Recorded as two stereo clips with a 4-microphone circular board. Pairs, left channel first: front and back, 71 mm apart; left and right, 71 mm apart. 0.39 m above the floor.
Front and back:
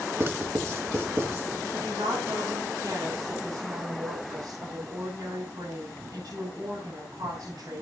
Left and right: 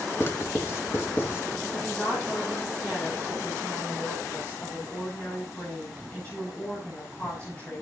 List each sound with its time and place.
0.2 s writing: 140° left, 2 m
1.7 s a woman speaking: 160° left, 6.5 m